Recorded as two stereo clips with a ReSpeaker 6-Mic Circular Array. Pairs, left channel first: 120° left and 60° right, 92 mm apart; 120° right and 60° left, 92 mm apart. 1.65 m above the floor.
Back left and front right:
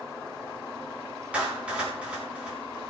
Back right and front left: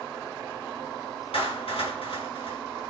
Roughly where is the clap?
Behind right.